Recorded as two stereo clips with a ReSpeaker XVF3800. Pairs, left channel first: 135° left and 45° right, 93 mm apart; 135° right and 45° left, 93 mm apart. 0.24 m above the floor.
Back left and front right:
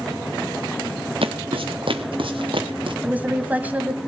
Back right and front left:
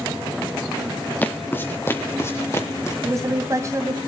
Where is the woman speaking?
15° left, 1.9 m.